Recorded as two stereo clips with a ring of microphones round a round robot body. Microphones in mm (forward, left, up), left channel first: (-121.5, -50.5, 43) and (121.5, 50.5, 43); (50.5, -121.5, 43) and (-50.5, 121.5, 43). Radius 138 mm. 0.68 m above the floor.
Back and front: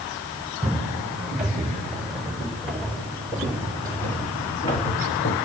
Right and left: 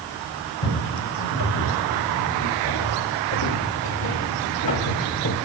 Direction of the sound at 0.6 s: 65° right.